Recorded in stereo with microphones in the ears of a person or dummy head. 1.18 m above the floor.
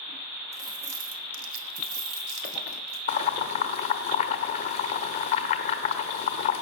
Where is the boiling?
40° left (ahead or behind), 1.1 m.